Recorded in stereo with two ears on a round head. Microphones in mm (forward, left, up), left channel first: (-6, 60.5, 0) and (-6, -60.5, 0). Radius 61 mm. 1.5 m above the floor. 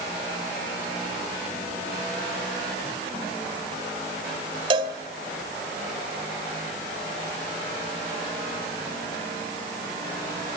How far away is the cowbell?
About 2.5 m.